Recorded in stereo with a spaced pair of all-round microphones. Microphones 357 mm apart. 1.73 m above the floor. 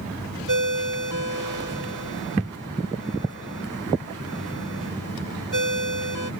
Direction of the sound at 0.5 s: 65° right (ahead or behind).